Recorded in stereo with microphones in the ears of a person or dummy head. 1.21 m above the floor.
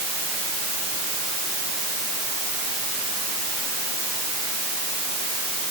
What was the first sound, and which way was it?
Only background noise.